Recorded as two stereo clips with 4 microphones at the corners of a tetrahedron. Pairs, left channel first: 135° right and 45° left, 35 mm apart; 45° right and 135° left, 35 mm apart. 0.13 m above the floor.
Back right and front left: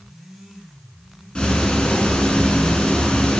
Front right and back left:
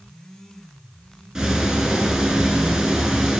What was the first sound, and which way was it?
Ticking, 165° right.